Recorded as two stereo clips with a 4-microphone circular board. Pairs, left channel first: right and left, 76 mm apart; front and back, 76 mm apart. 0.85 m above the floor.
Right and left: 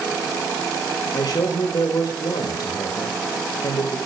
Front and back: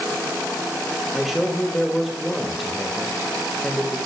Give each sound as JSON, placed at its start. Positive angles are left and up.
{"t": 1.1, "sound": "a man speaking", "azimuth_deg": -95, "distance_m": 1.2}